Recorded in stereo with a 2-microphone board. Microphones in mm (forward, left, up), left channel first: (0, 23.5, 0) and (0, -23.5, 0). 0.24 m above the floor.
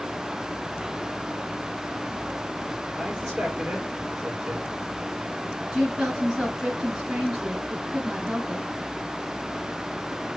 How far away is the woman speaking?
About 2.5 m.